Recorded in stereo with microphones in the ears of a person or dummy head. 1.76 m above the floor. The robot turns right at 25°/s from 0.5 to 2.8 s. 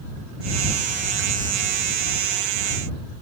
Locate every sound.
Only background noise.